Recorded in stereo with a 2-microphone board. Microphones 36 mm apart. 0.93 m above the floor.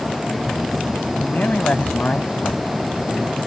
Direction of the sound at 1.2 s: 45° left (ahead or behind).